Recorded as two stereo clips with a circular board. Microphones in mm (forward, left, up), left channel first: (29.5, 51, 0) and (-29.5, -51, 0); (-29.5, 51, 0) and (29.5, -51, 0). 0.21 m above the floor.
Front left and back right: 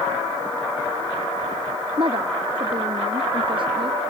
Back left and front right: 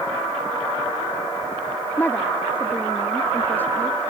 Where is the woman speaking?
165° right.